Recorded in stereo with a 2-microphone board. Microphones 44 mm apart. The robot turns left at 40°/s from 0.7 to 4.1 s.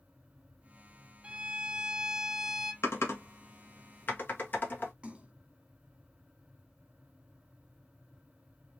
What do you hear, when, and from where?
1.2 s a violin: 120° right, 0.8 m; by 2.7 s straight behind, 0.8 m
2.8 s typing on a keyboard: 80° left, 1.7 m; by 4.9 s 50° left (ahead or behind), 1.7 m
5.0 s a splash: 25° right (ahead or behind), 1.3 m